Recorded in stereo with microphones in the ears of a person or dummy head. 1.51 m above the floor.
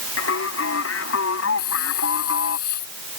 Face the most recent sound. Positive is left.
turn(degrees=55)  # may be behind; listen again after turning